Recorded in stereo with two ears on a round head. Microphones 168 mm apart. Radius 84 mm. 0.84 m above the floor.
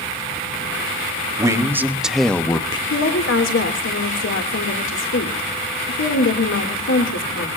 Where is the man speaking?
15° right (ahead or behind), 1.6 m; by 2.8 s 25° left (ahead or behind), 0.8 m.